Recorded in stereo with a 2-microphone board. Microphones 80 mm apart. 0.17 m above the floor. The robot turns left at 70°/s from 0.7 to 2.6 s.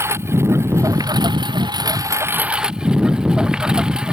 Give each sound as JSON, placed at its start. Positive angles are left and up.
{"t": 0.0, "sound": "a lawn mower", "azimuth_deg": -35}